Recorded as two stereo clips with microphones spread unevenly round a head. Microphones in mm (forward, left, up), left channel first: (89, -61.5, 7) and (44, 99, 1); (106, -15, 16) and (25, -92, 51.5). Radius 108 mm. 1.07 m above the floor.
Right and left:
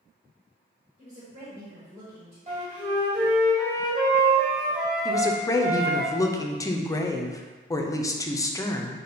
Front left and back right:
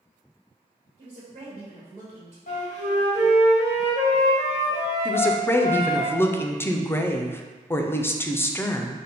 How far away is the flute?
About 1.6 m.